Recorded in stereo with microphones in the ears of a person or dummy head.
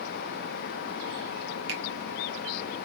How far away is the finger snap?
About 1.0 m.